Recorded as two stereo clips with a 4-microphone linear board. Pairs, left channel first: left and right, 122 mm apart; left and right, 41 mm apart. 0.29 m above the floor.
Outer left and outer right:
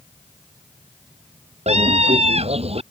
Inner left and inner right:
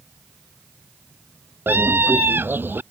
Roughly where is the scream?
Right.